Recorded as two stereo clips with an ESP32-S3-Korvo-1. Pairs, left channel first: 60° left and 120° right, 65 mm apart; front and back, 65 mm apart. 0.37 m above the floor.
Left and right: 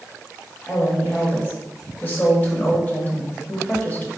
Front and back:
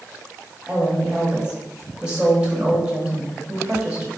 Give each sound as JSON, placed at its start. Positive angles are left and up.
{"t": 0.7, "sound": "a woman speaking", "azimuth_deg": 115, "distance_m": 1.1}